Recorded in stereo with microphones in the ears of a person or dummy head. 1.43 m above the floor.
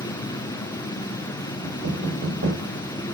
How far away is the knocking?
About 7.5 m.